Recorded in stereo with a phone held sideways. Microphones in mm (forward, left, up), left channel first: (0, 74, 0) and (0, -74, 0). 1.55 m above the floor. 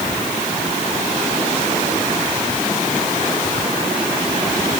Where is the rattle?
No rattle in this recording.